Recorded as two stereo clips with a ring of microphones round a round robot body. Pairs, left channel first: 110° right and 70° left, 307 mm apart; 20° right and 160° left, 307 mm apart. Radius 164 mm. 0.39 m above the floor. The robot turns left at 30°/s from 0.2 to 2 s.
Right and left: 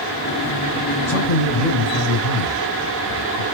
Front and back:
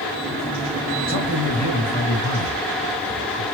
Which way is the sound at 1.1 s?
70° right.